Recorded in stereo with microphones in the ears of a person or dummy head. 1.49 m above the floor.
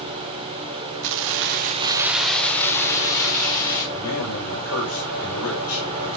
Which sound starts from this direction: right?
Keys jangling, at 1.0 s.